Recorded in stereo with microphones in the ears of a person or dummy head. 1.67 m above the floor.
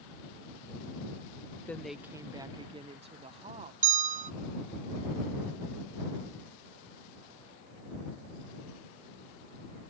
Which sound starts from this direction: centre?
A woman speaking, at 1.7 s.